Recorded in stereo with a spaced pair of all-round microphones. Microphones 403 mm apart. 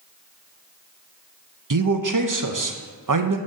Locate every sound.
1.7 s a man speaking: 50° right (ahead or behind), 0.7 m